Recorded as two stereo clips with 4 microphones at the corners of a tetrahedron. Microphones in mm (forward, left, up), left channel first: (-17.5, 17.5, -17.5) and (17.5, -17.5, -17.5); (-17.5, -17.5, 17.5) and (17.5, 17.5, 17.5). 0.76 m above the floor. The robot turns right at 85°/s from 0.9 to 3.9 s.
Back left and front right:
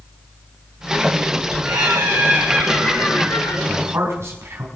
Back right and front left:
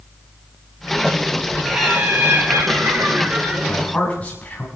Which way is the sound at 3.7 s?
90° right.